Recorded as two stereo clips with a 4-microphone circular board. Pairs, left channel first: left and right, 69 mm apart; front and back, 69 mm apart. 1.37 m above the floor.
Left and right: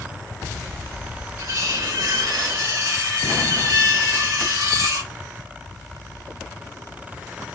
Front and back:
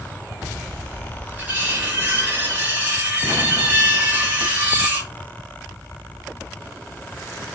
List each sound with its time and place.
1.4 s cutlery clinking: 115° right, 1.3 m